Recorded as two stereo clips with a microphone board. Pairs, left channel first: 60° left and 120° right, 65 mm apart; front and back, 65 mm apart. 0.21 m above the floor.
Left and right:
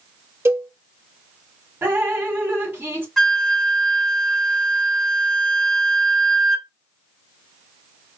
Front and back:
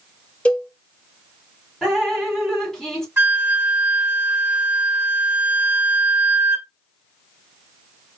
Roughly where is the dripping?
Right.